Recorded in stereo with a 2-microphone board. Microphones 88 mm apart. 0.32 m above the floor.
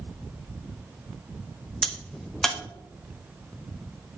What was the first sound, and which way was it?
A crack, 5° left (ahead or behind).